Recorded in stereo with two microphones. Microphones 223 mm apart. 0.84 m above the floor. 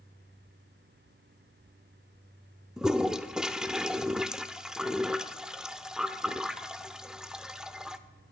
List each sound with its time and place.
2.8 s a toilet flushing: 5° right (ahead or behind), 0.6 m